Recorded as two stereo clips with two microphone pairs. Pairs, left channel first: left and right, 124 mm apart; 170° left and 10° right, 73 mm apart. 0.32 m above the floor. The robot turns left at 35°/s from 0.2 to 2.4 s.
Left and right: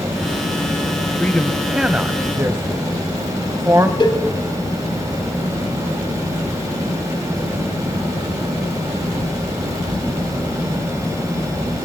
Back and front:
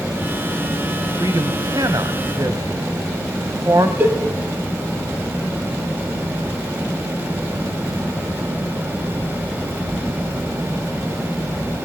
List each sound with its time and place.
1.2 s a man speaking: 15° left, 1.7 m; by 3.9 s 30° right, 1.7 m
4.0 s a cowbell: 50° left, 2.5 m